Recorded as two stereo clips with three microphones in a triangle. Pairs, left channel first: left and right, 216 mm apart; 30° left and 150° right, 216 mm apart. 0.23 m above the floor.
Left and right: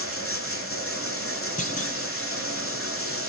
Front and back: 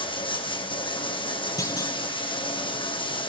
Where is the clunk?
95° left, 1.5 m.